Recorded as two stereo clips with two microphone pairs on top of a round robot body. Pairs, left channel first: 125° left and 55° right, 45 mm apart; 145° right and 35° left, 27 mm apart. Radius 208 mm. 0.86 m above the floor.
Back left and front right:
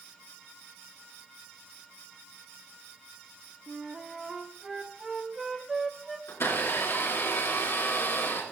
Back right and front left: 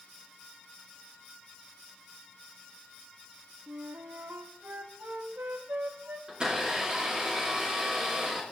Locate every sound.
3.7 s a flute: 30° left, 0.5 m
6.3 s a blender: 95° left, 3.5 m